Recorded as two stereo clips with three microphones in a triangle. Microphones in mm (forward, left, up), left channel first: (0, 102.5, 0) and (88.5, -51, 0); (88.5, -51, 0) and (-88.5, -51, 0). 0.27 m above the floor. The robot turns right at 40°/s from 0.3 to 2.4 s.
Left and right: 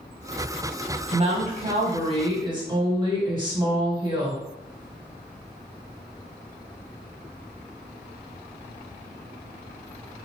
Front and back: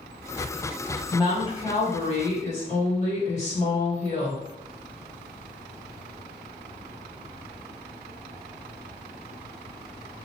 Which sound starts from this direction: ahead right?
A woman speaking, at 1.1 s.